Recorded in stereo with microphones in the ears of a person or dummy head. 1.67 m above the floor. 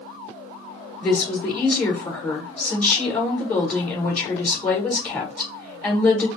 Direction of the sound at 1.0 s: 10° left (ahead or behind).